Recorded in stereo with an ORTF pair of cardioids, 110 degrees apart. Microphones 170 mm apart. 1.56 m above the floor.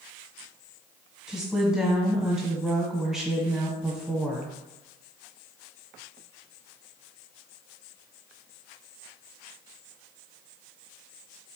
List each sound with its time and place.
1.3 s a woman speaking: 5° right, 1.1 m